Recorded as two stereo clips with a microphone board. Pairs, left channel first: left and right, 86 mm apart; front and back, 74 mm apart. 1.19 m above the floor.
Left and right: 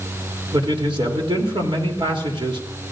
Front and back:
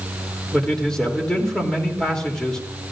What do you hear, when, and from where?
0.5 s a man speaking: 80° right, 3 m